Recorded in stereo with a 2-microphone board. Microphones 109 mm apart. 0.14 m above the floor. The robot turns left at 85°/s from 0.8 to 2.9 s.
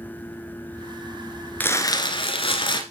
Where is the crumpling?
160° left, 1.3 m; by 2.8 s 55° left, 1.3 m.